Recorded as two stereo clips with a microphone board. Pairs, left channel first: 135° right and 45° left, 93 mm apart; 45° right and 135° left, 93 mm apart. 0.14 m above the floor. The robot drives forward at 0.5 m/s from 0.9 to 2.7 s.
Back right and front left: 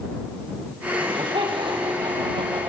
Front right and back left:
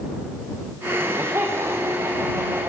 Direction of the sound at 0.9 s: 70° left.